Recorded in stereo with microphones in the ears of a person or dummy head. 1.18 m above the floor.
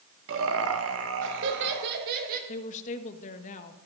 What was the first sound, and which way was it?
Laughter, 60° right (ahead or behind).